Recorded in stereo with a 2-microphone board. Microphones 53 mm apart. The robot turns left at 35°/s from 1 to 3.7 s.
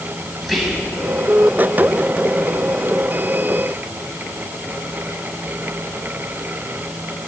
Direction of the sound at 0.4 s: Centre (ahead or behind).